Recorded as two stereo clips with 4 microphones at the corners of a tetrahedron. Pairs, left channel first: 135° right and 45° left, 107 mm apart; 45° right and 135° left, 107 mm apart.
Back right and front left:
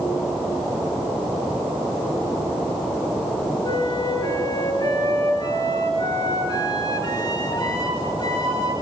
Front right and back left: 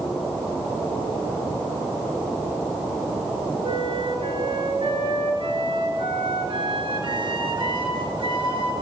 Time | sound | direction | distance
3.6 | a flute | straight behind | 3 m